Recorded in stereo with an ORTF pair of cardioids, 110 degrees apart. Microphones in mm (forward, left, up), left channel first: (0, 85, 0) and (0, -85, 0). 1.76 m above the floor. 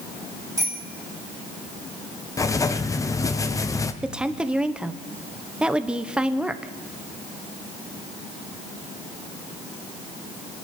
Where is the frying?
No frying in this recording.